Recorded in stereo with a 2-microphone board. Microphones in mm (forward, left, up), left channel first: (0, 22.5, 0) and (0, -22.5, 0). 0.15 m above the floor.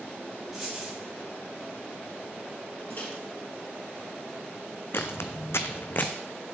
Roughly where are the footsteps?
Left.